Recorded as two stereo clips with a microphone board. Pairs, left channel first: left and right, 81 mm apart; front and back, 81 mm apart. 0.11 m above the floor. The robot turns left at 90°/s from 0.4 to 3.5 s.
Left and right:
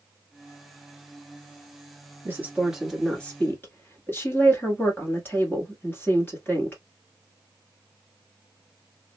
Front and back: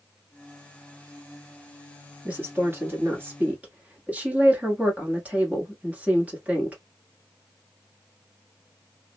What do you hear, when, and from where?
2.2 s a woman speaking: 120° right, 1.5 m; by 6.8 s 130° left, 1.5 m